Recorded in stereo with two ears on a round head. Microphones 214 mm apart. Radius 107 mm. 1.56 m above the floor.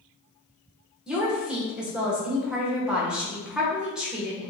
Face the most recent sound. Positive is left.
turn(degrees=-5)  # may be behind; listen again after turning